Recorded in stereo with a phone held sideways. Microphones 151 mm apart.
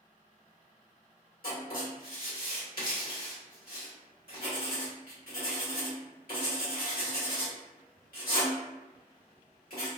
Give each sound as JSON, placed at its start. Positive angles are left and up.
{"t": 1.4, "sound": "writing", "side_deg": 80, "distance_m": 1.4}